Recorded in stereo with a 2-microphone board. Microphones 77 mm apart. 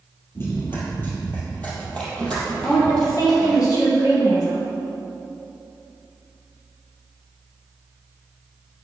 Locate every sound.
0.3 s running footsteps: 30° left (ahead or behind), 2.5 m; by 3.6 s 5° left (ahead or behind), 3.5 m
2.6 s a woman speaking: 60° left (ahead or behind), 3.5 m